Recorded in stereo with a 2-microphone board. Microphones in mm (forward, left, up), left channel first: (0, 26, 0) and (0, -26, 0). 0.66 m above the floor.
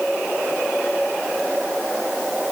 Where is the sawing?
No sawing in this recording.